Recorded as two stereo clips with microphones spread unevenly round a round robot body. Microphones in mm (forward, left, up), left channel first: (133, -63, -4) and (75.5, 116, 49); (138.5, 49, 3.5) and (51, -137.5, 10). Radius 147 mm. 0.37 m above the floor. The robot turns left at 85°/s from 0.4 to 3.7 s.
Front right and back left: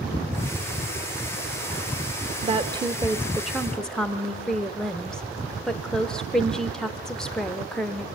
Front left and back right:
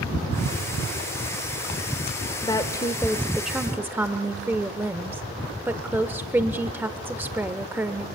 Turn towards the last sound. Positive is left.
turn(degrees=-50)